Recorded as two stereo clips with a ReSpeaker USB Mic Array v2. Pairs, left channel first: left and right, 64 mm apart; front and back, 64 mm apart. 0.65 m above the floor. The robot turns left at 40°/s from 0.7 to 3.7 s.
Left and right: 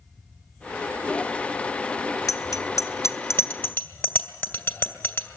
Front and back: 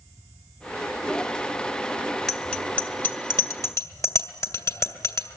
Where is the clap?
No clap in this recording.